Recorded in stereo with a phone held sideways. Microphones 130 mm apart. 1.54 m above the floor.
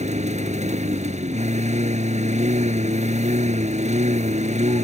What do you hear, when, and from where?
0.0 s a lawn mower: 60° right (ahead or behind)